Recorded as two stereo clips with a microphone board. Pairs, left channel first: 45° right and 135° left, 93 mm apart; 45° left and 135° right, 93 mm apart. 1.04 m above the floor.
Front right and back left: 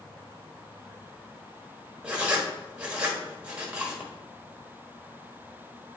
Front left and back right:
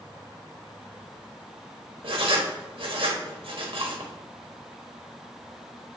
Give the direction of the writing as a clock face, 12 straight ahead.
5 o'clock.